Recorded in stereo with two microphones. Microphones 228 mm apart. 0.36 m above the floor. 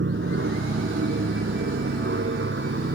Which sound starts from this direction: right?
An aircraft, at 0.0 s.